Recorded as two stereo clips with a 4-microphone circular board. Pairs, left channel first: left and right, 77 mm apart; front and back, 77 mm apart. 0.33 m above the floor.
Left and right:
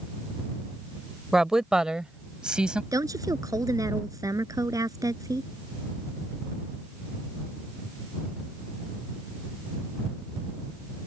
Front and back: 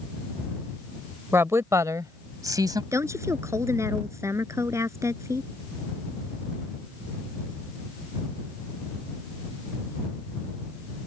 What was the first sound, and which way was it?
A woman speaking, 170° right.